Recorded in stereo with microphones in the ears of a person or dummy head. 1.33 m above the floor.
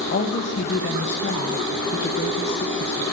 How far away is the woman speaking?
About 1.0 m.